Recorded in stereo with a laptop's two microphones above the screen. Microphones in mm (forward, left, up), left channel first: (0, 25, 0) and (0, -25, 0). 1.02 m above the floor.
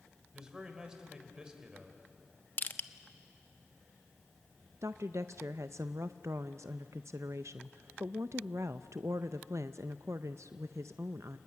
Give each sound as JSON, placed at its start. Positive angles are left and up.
{"t": 0.3, "sound": "a man speaking", "side_deg": -15, "distance_m": 4.0}
{"t": 2.6, "sound": "crushing", "side_deg": 35, "distance_m": 0.8}
{"t": 4.8, "sound": "a woman speaking", "side_deg": -70, "distance_m": 0.5}